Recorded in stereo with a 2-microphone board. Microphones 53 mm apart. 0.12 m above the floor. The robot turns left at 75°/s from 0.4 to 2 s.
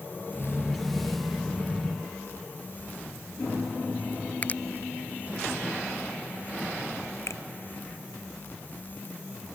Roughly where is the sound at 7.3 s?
Left.